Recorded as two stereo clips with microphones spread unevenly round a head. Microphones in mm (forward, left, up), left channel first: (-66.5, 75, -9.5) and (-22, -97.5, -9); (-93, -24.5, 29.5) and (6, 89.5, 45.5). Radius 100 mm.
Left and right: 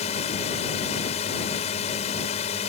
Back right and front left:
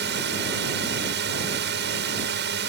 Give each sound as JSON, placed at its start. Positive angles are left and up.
{"t": 0.0, "sound": "a drone", "azimuth_deg": 45}